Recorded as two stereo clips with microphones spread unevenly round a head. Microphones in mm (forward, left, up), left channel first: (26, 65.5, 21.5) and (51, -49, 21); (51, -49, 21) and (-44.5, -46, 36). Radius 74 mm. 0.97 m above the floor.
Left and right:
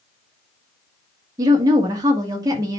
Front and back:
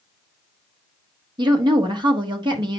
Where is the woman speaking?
140° right, 1.4 m.